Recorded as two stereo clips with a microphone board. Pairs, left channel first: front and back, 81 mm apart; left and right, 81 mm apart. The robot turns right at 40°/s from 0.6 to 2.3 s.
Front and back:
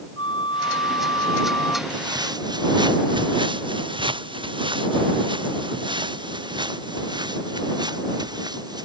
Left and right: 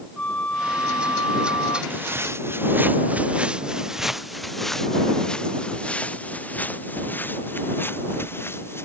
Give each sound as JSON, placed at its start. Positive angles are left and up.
{"t": 0.2, "sound": "a flute", "azimuth_deg": 15}
{"t": 1.9, "sound": "footsteps", "azimuth_deg": -155}